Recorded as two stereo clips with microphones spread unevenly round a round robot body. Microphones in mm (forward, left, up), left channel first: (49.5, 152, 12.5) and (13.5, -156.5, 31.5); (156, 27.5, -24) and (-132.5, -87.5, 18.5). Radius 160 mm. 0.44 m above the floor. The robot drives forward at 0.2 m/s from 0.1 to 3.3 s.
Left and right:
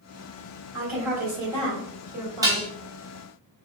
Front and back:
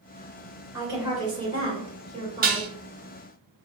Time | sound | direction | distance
0.7 | a woman speaking | 75° right | 1.8 m
2.4 | dishes clattering | 165° right | 0.6 m